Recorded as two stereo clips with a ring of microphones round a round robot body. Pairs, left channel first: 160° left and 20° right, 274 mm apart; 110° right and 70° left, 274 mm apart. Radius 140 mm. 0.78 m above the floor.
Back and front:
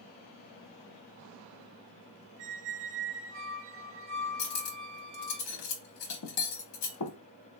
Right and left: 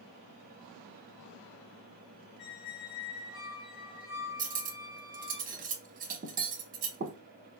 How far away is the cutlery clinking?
About 0.8 m.